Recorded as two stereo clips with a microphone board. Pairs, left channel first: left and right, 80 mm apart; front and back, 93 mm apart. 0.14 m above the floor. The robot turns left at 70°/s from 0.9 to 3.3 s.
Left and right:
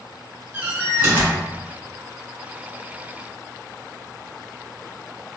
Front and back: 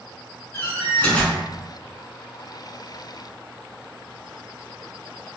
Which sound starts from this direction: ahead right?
A door slam, at 0.5 s.